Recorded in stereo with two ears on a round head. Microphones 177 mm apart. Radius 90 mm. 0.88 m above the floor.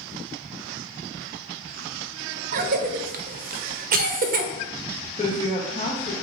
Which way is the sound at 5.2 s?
25° left (ahead or behind).